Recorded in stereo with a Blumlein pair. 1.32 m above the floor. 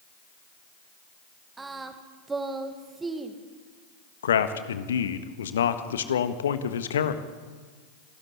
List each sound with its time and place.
1.6 s singing: 15° right, 1.8 m
4.2 s a man speaking: 65° left, 1.5 m